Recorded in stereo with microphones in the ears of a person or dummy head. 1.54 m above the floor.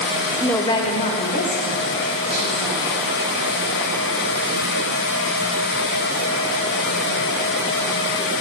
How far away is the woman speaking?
About 0.6 m.